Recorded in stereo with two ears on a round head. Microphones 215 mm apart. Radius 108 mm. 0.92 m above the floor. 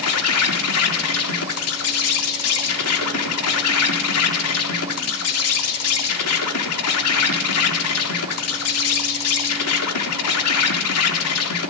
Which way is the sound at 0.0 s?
70° left (ahead or behind).